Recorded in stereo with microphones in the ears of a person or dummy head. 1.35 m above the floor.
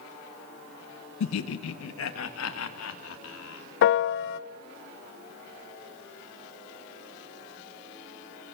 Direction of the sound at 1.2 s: 75° left (ahead or behind).